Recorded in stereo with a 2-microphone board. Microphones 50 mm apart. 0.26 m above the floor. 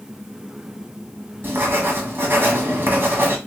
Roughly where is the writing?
Right.